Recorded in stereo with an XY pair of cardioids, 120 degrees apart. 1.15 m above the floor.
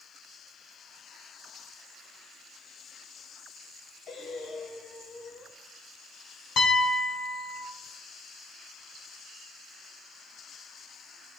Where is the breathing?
45° left, 0.8 m.